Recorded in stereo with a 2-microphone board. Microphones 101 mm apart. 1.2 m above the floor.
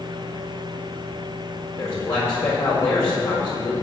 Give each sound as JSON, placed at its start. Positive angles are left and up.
{"t": 1.8, "sound": "a man speaking", "side_deg": 30, "distance_m": 4.5}